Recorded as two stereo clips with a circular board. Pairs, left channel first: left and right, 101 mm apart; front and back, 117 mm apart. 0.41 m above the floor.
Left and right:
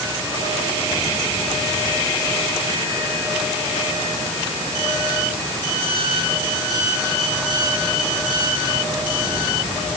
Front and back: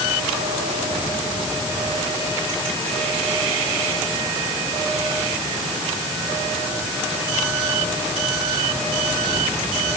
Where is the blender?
No blender in this recording.